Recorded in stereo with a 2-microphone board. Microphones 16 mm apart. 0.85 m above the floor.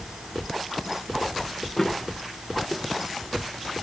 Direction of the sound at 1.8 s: 20° left (ahead or behind).